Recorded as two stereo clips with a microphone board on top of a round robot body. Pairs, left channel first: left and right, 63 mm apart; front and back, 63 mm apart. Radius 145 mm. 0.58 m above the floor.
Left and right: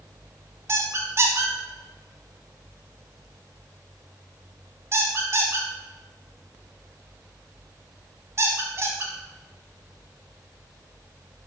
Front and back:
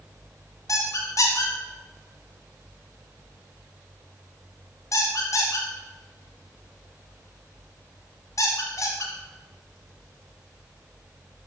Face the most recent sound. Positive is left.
turn(degrees=-40)